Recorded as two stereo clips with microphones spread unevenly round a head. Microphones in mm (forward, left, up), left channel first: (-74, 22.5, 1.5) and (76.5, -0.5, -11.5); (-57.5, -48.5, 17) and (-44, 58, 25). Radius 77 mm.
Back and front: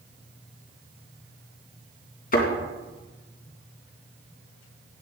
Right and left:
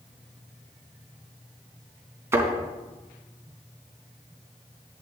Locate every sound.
2.3 s a thud: 145° left, 3 m